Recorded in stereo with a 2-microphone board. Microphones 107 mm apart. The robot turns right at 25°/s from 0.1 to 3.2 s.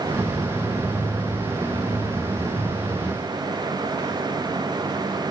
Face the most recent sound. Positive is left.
No sound to turn to.